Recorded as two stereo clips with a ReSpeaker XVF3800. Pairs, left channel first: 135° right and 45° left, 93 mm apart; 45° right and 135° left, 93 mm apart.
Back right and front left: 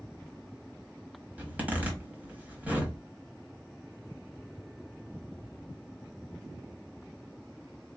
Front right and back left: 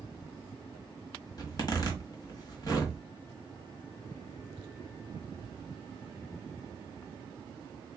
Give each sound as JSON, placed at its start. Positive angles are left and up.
{"t": 1.4, "sound": "a zipper", "azimuth_deg": -20, "distance_m": 1.4}